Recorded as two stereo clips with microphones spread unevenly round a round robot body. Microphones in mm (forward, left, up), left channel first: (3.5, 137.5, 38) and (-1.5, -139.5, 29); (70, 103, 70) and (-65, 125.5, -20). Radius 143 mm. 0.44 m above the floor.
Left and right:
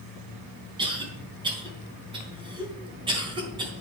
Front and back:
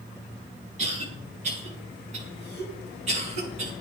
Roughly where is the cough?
Behind.